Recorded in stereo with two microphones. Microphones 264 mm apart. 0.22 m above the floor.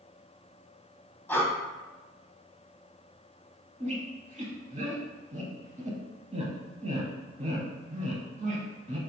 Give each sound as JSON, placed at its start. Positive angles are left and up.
{"t": 1.3, "sound": "breathing", "side_deg": 10, "distance_m": 0.7}
{"t": 3.8, "sound": "a squeak", "side_deg": -25, "distance_m": 0.6}